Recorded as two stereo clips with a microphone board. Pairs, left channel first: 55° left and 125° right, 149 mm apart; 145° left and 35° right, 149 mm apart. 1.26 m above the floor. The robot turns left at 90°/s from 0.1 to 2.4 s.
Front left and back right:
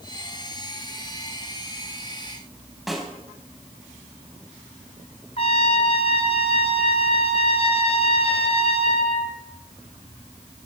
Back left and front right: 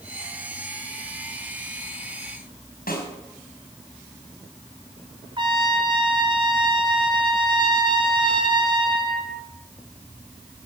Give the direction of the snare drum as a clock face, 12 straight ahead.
7 o'clock.